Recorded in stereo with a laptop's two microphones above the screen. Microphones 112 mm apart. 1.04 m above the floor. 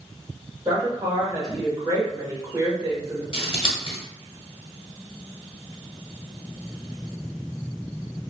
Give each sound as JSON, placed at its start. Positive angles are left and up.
{"t": 0.7, "sound": "a woman speaking", "side_deg": -30, "distance_m": 1.8}
{"t": 3.3, "sound": "scissors", "side_deg": 50, "distance_m": 1.4}